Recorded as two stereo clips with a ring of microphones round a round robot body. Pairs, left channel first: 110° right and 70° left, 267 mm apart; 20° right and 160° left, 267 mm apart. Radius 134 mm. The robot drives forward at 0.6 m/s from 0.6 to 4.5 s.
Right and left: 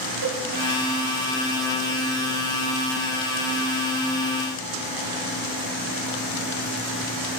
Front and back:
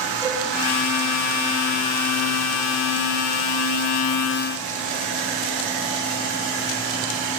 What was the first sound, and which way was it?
A cowbell, 55° left.